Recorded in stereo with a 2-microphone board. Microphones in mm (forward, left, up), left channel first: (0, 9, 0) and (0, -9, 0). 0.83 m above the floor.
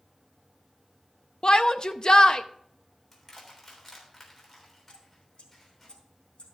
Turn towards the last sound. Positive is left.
turn(degrees=75)  # may be behind; listen again after turning